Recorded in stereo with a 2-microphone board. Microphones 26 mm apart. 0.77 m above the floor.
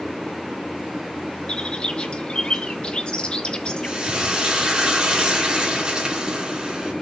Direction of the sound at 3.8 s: 30° right (ahead or behind).